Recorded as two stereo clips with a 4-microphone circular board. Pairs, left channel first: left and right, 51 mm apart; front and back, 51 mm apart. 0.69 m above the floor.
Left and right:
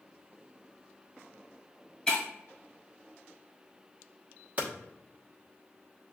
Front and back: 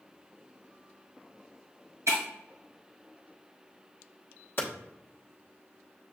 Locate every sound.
2.1 s breaking glass: 175° left, 1.8 m
4.6 s hammering: 35° right, 1.0 m